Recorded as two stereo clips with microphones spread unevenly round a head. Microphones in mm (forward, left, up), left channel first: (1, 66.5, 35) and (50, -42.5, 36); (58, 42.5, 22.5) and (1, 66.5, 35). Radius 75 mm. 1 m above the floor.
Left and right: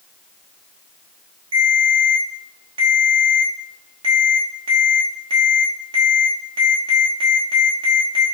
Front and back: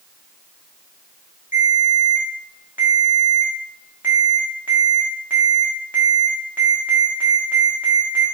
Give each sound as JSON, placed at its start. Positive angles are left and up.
{"t": 1.5, "sound": "a ringtone", "azimuth_deg": -125, "distance_m": 0.9}